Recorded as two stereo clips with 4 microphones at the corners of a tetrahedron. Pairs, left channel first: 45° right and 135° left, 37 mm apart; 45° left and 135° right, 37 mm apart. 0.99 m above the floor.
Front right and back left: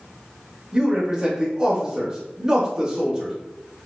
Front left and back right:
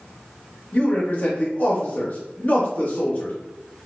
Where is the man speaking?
75° left, 1.1 m.